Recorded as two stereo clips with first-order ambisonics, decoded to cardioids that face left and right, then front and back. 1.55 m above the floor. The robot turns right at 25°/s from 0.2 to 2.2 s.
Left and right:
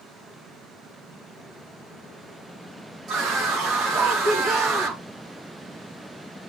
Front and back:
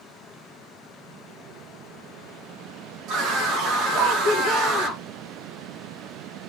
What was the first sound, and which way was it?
A scream, 145° right.